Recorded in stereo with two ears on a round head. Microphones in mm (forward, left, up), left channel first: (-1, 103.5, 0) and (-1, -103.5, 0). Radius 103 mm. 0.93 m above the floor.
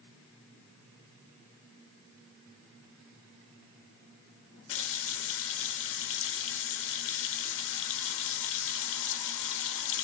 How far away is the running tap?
About 0.7 m.